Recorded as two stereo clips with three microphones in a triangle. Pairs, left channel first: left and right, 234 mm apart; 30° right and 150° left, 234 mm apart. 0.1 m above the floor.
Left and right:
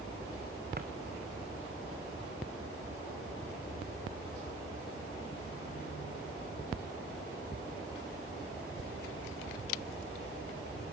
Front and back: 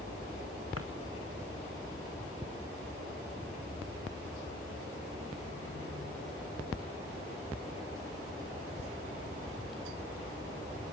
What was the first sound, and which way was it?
A drawer, 40° right.